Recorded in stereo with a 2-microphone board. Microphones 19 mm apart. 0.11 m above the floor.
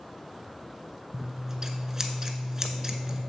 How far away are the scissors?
About 0.6 m.